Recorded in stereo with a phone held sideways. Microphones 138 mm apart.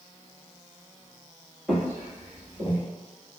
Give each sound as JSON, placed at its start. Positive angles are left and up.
{"t": 1.7, "sound": "footsteps", "side_deg": -5, "distance_m": 1.6}